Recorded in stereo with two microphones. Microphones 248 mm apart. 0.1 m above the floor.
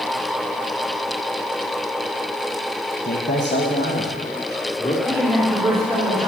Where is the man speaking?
35° left (ahead or behind), 2 m; by 5.0 s 20° left (ahead or behind), 3 m.